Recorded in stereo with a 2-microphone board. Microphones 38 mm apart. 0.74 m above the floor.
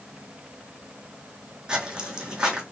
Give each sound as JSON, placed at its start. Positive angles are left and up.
{"t": 1.7, "sound": "footsteps", "side_deg": -20, "distance_m": 2.0}